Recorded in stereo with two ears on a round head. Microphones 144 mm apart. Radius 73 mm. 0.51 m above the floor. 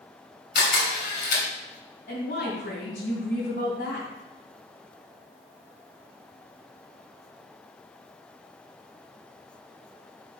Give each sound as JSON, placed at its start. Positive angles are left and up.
{"t": 0.6, "sound": "a camera shutter", "side_deg": 65, "distance_m": 3.5}
{"t": 2.1, "sound": "a woman speaking", "side_deg": 55, "distance_m": 3.0}